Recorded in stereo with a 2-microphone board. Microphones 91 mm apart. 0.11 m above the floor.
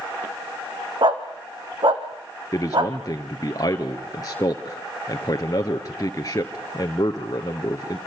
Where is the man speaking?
40° left (ahead or behind), 1.5 m.